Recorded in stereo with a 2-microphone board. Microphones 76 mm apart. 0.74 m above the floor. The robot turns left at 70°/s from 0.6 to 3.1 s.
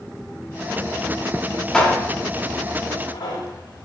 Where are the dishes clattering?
10° left (ahead or behind), 1.3 m; by 3.9 s 75° left (ahead or behind), 1.3 m.